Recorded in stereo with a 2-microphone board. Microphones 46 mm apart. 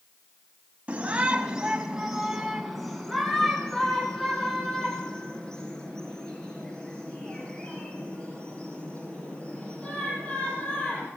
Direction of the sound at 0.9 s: 30° right (ahead or behind).